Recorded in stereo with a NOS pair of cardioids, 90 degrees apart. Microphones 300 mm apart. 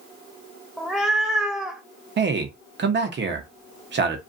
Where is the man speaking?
40° right, 0.9 m.